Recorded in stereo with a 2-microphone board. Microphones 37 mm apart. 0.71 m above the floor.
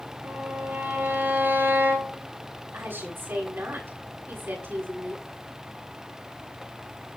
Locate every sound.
0.2 s a violin: 65° right (ahead or behind), 6 m
2.7 s a woman speaking: 75° right (ahead or behind), 7 m